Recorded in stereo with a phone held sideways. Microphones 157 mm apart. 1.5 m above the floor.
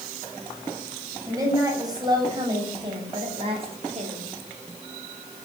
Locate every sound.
1.2 s a woman speaking: 20° right (ahead or behind), 7.5 m; by 4.3 s 45° right (ahead or behind), 5 m